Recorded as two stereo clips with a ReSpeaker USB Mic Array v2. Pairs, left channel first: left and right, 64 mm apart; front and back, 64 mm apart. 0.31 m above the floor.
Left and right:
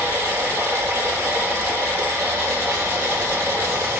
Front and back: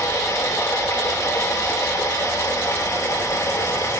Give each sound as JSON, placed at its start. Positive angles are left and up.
{"t": 0.0, "sound": "running water", "azimuth_deg": -35, "distance_m": 3.5}